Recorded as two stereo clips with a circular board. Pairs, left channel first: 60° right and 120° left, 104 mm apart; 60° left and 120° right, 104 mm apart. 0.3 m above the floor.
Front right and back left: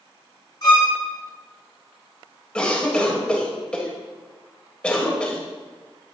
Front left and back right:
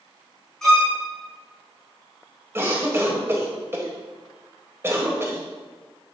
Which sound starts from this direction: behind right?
A cough, at 2.5 s.